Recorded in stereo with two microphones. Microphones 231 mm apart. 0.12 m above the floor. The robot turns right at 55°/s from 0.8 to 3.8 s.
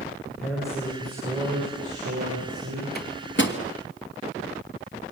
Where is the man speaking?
Straight behind, 9.5 m; by 2.9 s 65° right, 9.5 m.